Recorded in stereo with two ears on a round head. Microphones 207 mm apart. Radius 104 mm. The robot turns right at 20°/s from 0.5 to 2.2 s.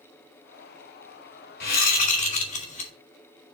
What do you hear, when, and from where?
1.6 s a whoosh: 45° left (ahead or behind), 2.5 m; by 2.9 s 35° left (ahead or behind), 2.5 m